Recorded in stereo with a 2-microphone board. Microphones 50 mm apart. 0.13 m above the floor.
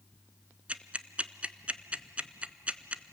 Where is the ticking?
25° right (ahead or behind), 0.7 m.